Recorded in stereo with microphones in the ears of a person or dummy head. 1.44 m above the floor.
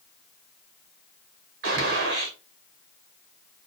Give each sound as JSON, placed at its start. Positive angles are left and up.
{"t": 1.6, "sound": "a gunshot", "side_deg": -55, "distance_m": 0.9}